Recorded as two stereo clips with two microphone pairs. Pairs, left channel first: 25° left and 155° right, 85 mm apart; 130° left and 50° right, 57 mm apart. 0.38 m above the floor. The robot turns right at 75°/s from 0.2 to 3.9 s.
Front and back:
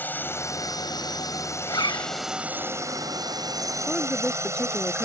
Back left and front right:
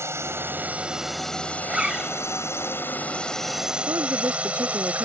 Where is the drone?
40° right; by 5.1 s 115° right.